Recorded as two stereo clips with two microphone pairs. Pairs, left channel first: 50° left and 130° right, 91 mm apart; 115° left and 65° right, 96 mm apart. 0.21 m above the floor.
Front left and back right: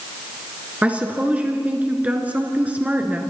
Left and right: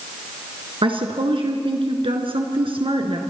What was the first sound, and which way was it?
A woman speaking, 60° right.